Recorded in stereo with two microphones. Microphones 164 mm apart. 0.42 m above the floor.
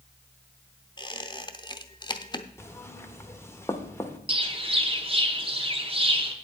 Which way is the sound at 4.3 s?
35° right (ahead or behind).